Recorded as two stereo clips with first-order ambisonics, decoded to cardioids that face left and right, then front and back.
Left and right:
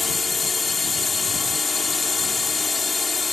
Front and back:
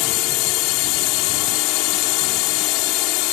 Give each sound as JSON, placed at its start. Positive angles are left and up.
{"t": 0.0, "sound": "a drone", "azimuth_deg": 15}